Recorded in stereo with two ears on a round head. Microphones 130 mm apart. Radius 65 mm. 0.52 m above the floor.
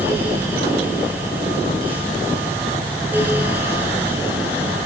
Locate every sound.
Only background noise.